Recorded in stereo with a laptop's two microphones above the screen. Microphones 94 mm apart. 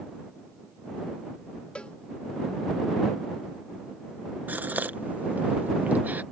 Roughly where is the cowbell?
Centre.